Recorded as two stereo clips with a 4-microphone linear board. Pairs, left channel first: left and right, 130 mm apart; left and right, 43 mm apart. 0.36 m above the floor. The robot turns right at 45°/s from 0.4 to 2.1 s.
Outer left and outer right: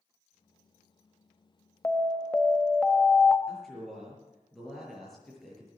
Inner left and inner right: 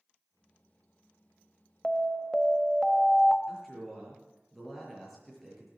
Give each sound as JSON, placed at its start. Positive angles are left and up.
{"t": 1.8, "sound": "an alarm", "side_deg": 15, "distance_m": 1.0}
{"t": 3.5, "sound": "a man speaking", "side_deg": 5, "distance_m": 6.0}